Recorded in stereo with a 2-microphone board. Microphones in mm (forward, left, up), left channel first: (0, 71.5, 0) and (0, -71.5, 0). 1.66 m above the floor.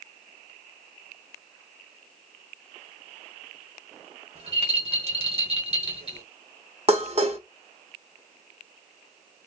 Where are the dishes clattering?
45° right (ahead or behind), 1.2 m.